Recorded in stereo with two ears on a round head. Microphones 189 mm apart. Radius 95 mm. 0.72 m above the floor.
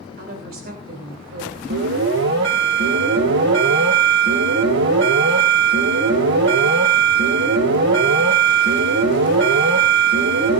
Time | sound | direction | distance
0.2 | a woman speaking | 45° right (ahead or behind) | 3.5 m
1.7 | an alarm | 60° right (ahead or behind) | 3 m